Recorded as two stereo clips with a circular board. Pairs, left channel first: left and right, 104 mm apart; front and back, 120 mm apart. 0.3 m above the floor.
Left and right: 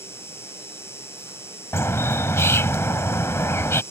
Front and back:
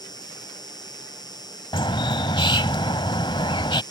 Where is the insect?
35° left.